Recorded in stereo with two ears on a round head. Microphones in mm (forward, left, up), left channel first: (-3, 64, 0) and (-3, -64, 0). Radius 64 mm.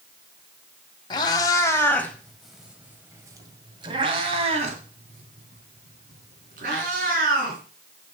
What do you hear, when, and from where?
1.1 s a cat meowing: 30° left (ahead or behind), 1.8 m; by 7.6 s 70° right (ahead or behind), 4 m